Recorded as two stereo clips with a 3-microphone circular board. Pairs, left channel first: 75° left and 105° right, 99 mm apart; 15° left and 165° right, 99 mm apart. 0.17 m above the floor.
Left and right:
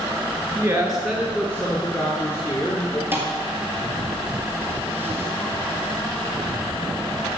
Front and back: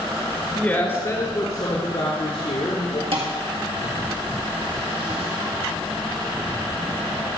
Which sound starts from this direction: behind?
A thud, at 3.1 s.